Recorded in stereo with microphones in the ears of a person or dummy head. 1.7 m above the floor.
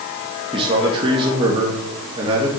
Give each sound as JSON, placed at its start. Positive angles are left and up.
{"t": 0.5, "sound": "a man speaking", "side_deg": -30, "distance_m": 1.9}